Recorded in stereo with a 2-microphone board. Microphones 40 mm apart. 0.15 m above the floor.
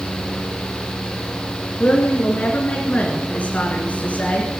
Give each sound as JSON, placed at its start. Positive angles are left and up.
{"t": 1.8, "sound": "a woman speaking", "side_deg": 40, "distance_m": 1.7}